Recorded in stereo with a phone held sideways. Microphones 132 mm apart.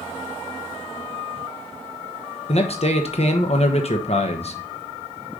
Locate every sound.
2.5 s a man speaking: 50° left (ahead or behind), 1.0 m